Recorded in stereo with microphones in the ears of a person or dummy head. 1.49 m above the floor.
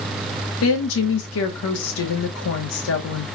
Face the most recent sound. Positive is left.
turn(degrees=80)